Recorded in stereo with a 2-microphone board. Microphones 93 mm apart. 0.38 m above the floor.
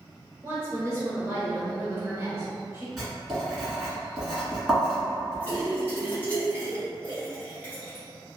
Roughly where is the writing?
Centre.